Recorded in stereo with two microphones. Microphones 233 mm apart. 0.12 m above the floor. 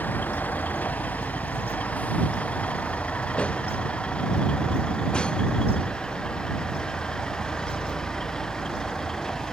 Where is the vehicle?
5° left (ahead or behind); by 9.5 s centre (ahead or behind).